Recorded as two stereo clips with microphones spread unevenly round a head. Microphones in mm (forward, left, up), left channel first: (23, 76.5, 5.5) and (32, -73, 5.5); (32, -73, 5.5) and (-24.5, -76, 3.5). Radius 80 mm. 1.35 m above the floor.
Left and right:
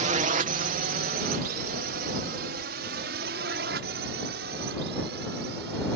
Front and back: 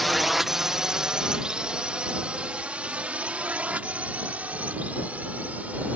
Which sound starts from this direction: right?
A drone, at 0.0 s.